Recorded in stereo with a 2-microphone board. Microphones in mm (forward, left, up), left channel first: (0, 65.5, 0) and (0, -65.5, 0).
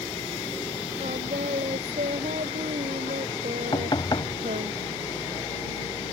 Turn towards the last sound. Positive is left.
turn(degrees=40)  # may be behind; listen again after turning